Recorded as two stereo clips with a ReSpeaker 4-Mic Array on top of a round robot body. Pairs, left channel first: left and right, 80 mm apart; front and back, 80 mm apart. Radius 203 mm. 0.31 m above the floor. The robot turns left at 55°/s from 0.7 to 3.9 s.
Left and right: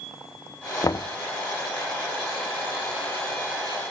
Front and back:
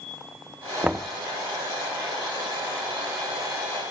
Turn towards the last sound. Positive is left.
turn(degrees=-55)